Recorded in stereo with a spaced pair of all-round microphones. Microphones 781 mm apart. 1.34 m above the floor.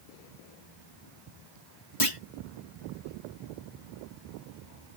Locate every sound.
2.0 s a clunk: 40° left (ahead or behind)